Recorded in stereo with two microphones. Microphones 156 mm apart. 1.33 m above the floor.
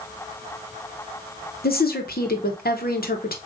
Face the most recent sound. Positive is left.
turn(degrees=80)